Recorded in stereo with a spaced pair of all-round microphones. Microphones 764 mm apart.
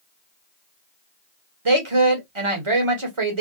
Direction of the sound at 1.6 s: 45° right (ahead or behind).